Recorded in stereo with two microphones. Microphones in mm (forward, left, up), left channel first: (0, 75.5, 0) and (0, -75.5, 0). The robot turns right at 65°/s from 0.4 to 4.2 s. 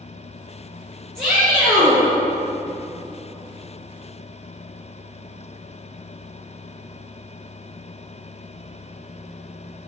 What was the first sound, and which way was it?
A shout, 175° left.